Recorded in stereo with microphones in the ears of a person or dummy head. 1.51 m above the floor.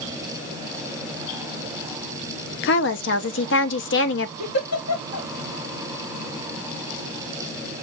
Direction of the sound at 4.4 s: 90° left.